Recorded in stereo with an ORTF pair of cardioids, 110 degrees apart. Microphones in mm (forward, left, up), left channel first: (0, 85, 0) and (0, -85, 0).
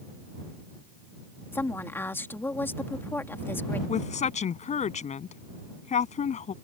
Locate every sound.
1.5 s a woman speaking: 15° left
3.9 s a woman speaking: 45° left